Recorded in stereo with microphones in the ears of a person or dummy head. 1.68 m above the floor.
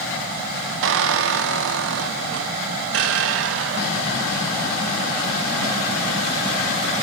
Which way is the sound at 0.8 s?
70° right (ahead or behind).